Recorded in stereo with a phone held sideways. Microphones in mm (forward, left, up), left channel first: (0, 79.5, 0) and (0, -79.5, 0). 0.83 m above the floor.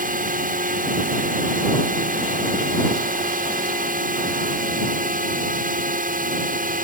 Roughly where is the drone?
Right.